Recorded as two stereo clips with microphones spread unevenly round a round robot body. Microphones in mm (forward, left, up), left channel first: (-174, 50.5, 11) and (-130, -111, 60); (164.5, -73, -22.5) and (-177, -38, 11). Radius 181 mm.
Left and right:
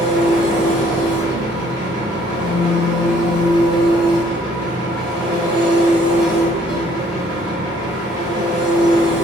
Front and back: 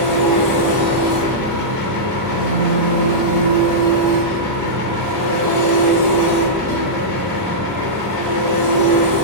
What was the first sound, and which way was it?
An engine running, 30° right.